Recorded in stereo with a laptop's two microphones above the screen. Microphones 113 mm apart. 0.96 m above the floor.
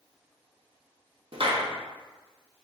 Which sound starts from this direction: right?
A clap, at 1.3 s.